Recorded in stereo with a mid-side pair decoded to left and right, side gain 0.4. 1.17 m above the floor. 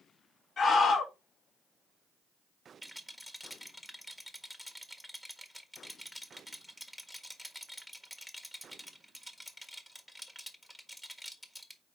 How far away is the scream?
About 4 m.